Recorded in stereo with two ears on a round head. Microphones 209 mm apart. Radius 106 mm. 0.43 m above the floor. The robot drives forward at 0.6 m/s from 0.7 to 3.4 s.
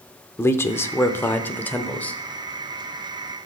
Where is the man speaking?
10° left (ahead or behind), 0.8 m; by 2.2 s 5° left (ahead or behind), 1.4 m.